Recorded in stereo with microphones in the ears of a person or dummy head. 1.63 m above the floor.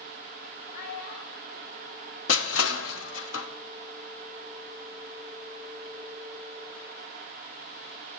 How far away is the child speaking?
About 1.2 m.